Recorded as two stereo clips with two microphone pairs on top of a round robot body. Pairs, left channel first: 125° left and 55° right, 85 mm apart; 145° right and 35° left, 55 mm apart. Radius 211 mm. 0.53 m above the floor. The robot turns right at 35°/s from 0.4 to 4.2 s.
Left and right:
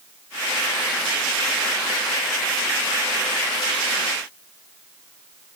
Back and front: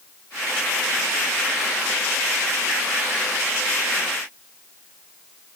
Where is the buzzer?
No buzzer in this recording.